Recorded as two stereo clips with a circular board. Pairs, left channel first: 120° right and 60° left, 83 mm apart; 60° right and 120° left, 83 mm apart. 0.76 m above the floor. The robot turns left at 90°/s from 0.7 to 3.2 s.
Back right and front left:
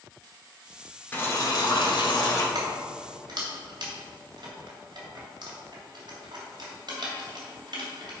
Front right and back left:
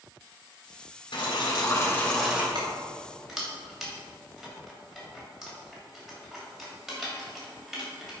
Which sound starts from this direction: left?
Keys jangling, at 2.5 s.